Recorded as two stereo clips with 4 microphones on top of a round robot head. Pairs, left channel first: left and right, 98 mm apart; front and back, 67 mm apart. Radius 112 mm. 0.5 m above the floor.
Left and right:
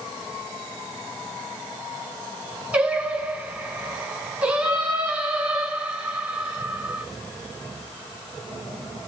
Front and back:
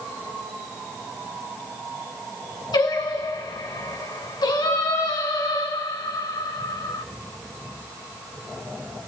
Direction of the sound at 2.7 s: 15° right.